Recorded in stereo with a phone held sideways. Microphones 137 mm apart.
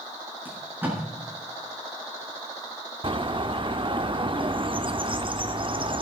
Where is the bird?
35° right (ahead or behind), 0.7 m.